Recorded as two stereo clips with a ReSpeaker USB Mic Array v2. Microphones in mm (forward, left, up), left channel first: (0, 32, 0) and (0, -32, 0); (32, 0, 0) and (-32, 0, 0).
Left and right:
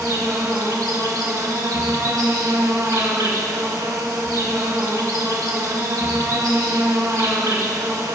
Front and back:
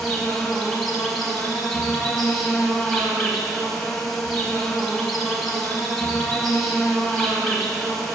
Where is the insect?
85° right, 1.5 m.